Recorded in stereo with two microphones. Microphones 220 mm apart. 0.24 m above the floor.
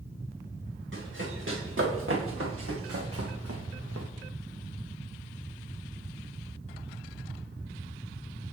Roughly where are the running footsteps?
Right.